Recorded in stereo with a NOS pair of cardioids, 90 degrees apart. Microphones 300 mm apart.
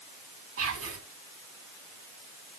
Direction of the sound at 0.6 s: 50° right.